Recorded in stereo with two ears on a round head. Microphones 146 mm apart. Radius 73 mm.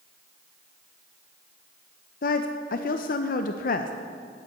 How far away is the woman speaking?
About 0.5 m.